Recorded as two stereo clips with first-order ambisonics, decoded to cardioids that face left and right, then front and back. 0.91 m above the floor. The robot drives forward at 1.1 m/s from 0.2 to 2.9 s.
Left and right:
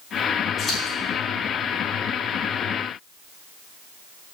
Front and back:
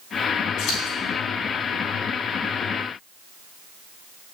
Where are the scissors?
25° left, 3.5 m; by 1.0 s 30° left, 3 m.